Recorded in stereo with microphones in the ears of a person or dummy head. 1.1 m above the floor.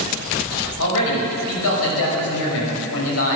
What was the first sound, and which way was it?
A man speaking, 75° left (ahead or behind).